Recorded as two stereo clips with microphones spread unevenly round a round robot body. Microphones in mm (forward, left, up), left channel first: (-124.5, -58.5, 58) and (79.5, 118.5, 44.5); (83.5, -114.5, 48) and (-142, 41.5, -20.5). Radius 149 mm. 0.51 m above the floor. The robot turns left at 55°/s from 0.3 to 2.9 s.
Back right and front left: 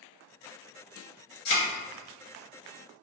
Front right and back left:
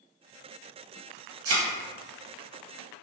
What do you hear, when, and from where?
1.4 s a thud: 170° right, 1.8 m; by 1.6 s straight behind, 1.8 m